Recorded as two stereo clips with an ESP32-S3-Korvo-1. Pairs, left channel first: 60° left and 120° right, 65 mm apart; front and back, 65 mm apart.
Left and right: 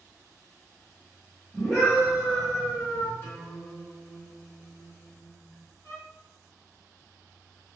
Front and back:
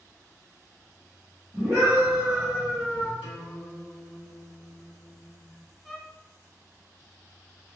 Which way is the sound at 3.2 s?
115° left.